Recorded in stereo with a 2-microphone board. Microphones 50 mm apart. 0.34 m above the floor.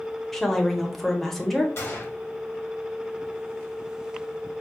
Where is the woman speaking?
5° left (ahead or behind), 0.8 m.